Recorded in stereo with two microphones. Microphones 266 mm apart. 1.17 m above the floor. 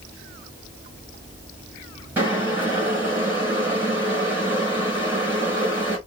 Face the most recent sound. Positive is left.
turn(degrees=-10)  # may be behind; listen again after turning